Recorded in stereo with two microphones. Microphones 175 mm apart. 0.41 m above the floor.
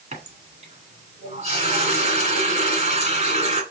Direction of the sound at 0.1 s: 40° right (ahead or behind).